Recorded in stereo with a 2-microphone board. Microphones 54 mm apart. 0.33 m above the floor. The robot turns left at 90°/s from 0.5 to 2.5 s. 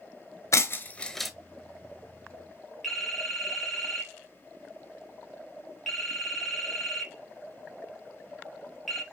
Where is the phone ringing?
Centre (ahead or behind), 3 m.